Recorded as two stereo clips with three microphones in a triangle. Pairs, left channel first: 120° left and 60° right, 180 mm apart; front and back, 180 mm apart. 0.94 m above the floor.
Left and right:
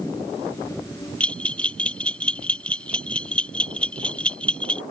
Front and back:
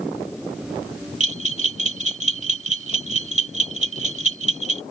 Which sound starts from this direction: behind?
A bell, at 1.2 s.